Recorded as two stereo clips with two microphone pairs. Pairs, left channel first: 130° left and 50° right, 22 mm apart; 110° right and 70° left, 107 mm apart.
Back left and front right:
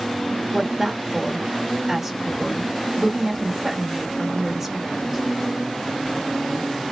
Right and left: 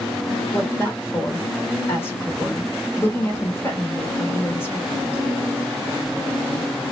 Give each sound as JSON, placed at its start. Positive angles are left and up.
{"t": 0.5, "sound": "a woman speaking", "azimuth_deg": -95, "distance_m": 1.1}